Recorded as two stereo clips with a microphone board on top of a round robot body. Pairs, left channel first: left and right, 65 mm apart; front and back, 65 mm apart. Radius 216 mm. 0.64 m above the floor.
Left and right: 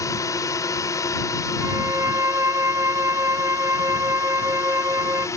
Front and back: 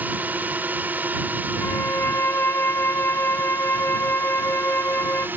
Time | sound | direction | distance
0.0 | a drone | 115° left | ?
1.6 | a violin | 50° right | ?